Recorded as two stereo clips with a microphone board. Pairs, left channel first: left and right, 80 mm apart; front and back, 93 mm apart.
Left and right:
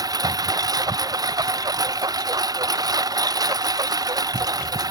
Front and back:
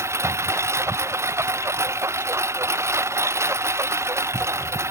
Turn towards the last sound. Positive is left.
turn(degrees=-120)